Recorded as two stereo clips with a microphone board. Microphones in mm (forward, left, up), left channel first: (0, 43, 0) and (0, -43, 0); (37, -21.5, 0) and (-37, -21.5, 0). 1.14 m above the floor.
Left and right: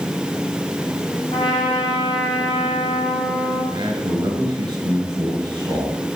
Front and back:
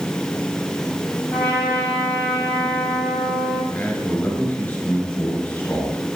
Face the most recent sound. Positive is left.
turn(degrees=-60)